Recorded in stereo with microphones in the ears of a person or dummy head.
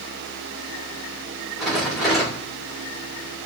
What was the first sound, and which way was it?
A rattle, centre (ahead or behind).